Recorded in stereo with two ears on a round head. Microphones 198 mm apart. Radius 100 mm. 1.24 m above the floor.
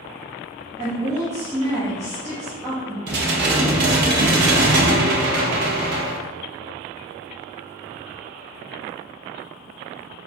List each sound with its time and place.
0.8 s a woman speaking: 15° right (ahead or behind), 1.2 m
3.1 s dishes clattering: 55° right (ahead or behind), 0.7 m